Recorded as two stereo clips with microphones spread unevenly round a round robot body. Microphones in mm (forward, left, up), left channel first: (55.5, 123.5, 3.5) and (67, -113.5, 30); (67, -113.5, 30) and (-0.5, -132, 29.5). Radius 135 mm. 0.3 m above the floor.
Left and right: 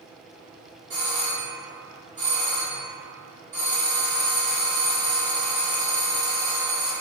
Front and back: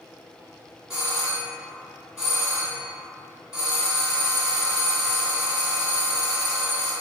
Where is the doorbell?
100° right, 1.5 m.